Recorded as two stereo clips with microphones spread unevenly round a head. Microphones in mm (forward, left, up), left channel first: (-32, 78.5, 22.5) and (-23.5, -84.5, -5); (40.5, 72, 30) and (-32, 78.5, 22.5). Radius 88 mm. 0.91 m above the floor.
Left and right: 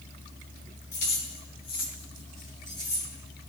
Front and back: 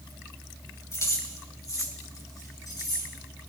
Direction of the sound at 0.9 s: 40° left.